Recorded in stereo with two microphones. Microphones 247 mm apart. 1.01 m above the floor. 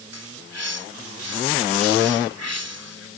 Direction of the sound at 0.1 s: 80° right.